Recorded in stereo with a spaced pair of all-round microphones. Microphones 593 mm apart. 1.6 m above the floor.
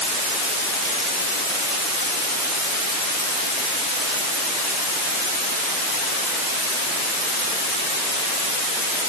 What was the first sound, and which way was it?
Only background noise.